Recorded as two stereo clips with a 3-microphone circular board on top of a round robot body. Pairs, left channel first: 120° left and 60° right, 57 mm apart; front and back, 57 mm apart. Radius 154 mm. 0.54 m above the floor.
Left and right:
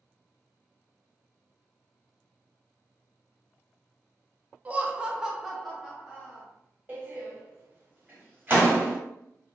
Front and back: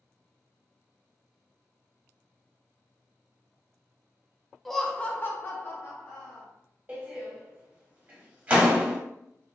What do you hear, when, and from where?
4.7 s laughter: 90° right, 0.6 m; by 6.5 s 35° left, 1.2 m
6.9 s a door slam: 120° right, 1.1 m